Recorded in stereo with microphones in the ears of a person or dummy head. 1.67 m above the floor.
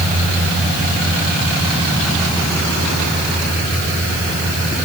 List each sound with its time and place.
Only background noise.